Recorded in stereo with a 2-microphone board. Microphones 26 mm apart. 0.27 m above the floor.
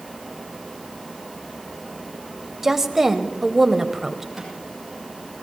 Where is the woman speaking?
15° right (ahead or behind), 1.0 m.